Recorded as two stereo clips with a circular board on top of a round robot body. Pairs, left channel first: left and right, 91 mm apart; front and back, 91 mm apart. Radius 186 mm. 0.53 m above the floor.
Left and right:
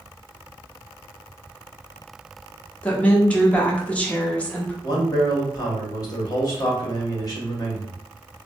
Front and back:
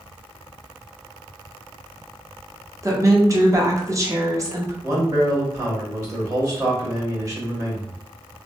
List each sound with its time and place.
2.8 s a woman speaking: 155° left, 1.1 m
4.8 s a man speaking: 130° left, 1.8 m